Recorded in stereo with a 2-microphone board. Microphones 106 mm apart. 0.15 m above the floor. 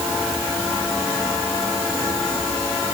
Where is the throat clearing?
No throat clearing in this recording.